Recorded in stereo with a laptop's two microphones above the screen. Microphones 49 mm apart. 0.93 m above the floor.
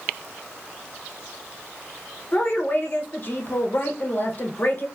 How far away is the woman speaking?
About 0.7 m.